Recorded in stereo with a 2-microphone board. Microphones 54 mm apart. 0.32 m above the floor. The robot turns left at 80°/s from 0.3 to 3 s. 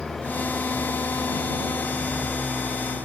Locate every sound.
0.0 s an engine running: 170° left; by 3.1 s 45° right